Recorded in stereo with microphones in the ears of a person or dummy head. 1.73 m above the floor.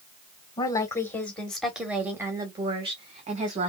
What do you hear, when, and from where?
0.6 s a woman speaking: 15° left (ahead or behind), 1.6 m; by 3.7 s 45° right (ahead or behind), 1.8 m